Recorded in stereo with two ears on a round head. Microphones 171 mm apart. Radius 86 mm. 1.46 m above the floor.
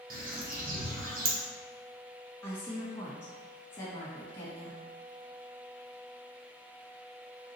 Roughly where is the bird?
Right.